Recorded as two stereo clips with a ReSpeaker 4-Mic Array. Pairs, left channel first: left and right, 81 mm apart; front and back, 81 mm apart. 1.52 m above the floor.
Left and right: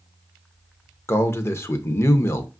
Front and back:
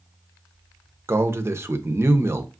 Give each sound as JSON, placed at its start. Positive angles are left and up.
{"t": 1.1, "sound": "a man speaking", "azimuth_deg": 135, "distance_m": 0.6}